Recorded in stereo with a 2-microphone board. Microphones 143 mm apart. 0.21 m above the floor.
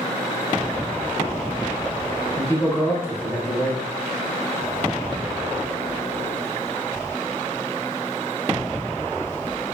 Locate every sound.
2.4 s a man speaking: 20° left (ahead or behind), 1.0 m